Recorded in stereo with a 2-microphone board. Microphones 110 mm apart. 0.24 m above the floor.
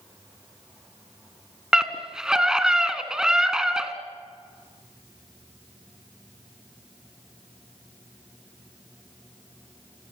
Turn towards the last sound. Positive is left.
turn(degrees=-5)  # may be behind; listen again after turning